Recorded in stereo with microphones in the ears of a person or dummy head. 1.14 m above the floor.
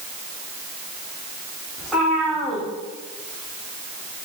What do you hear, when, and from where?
1.8 s a cat meowing: 5° right (ahead or behind), 2.5 m